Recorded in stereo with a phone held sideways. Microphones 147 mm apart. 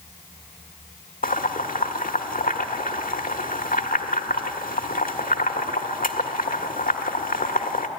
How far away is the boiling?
About 1.2 m.